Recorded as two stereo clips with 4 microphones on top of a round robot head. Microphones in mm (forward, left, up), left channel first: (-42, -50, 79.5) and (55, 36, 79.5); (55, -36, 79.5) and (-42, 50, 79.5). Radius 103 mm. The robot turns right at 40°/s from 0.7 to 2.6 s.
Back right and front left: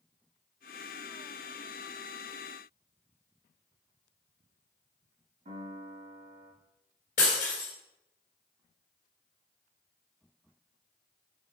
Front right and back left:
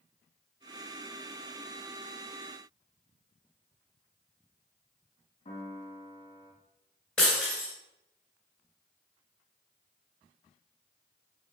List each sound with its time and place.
5.5 s a piano: 10° left, 2.0 m
7.2 s breaking glass: 125° right, 2.0 m